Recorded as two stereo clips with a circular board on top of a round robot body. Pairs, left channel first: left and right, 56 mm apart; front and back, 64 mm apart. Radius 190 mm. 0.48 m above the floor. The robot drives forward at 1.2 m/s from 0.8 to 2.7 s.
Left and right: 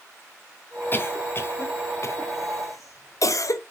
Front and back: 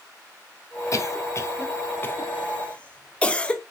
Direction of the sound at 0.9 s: 40° left.